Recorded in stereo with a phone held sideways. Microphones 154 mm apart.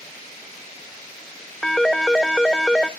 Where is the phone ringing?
5° left (ahead or behind), 0.7 m.